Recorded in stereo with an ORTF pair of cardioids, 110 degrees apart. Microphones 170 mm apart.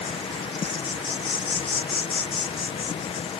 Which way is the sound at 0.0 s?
30° left.